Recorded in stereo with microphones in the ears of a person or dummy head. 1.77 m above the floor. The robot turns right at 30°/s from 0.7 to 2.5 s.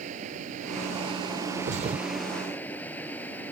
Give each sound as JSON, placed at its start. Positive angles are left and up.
{"t": 0.0, "sound": "running water", "azimuth_deg": -45}
{"t": 1.6, "sound": "a thud", "side_deg": -45}